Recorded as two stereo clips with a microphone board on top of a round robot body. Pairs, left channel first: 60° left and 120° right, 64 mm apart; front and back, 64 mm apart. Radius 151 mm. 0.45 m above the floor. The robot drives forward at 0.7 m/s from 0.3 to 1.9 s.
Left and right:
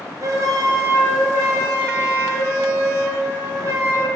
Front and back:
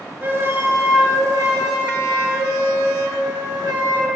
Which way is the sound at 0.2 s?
125° right.